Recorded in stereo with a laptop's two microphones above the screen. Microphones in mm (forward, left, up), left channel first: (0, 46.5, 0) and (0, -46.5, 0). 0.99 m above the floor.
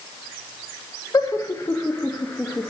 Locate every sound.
1.1 s laughter: 40° left (ahead or behind), 0.9 m; by 2.7 s 10° left (ahead or behind), 1.7 m